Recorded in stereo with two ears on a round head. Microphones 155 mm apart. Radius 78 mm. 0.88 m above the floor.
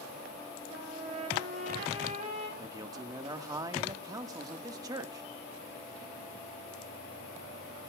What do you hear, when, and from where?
0.7 s a trumpet: 40° right (ahead or behind), 5 m
2.6 s a man speaking: 20° right (ahead or behind), 1.4 m